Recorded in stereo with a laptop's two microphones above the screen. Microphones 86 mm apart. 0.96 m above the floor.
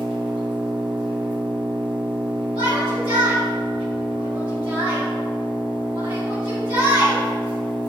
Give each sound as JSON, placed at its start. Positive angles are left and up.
{"t": 0.0, "sound": "an engine running", "side_deg": -65, "distance_m": 1.0}
{"t": 2.5, "sound": "a shout", "side_deg": -80, "distance_m": 1.9}